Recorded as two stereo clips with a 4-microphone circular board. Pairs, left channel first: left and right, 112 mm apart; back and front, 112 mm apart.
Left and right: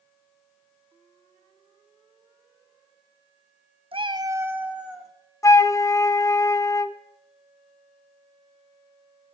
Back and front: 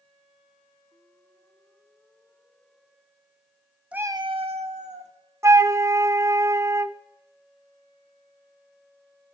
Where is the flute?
50° left, 0.6 m.